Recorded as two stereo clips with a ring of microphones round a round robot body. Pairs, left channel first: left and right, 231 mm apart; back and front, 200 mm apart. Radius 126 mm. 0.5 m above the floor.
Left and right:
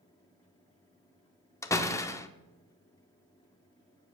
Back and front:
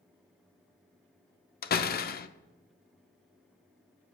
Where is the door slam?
165° left, 0.7 m.